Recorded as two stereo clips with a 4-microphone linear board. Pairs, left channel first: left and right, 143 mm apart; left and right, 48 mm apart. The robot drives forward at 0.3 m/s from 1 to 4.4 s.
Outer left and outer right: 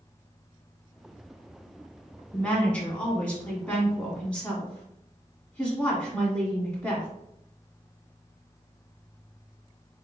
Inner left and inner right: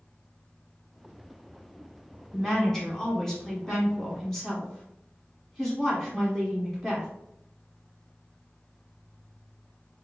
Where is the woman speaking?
10° left (ahead or behind), 1.1 m.